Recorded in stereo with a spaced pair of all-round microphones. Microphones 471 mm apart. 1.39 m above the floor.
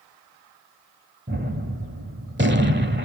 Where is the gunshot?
25° right (ahead or behind), 1.3 m.